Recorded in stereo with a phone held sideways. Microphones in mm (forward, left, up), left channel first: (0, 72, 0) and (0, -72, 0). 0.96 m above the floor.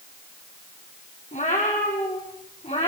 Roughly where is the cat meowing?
Left.